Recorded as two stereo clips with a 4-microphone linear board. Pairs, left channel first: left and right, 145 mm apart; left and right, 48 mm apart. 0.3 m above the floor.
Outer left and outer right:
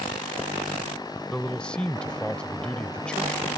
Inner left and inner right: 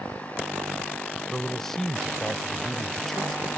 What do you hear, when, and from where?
1.3 s a man speaking: 5° left (ahead or behind)